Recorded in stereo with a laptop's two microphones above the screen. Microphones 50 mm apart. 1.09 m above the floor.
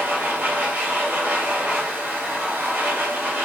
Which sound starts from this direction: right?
A machine running, at 0.0 s.